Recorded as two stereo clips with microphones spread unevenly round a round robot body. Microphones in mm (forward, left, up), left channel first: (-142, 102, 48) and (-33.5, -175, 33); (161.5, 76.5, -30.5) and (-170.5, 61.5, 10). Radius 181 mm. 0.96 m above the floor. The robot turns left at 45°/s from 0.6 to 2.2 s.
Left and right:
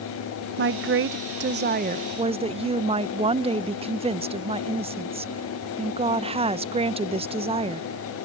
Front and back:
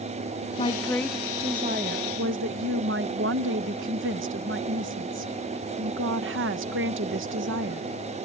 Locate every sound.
0.6 s a woman speaking: 55° right; by 7.9 s 130° right